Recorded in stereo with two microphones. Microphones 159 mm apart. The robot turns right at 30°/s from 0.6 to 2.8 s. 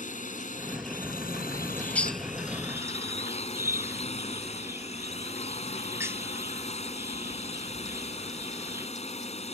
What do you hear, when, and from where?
0.0 s a drone: 65° left; by 9.5 s 130° left
1.5 s a bird: 20° left (ahead or behind); by 8.9 s 15° right (ahead or behind)